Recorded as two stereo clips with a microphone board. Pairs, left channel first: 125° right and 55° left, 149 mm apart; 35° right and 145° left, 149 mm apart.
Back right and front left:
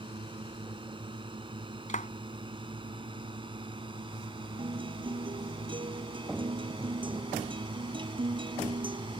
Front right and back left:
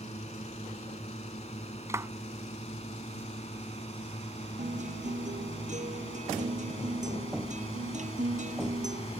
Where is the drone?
5° left.